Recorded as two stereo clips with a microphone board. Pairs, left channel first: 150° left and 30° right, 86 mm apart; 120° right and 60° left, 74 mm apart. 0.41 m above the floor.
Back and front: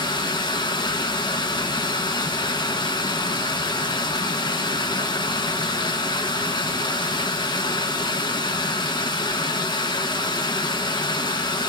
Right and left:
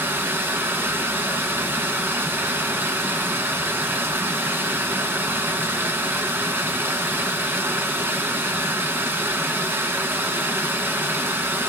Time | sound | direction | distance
0.0 | running water | 120° left | 0.9 m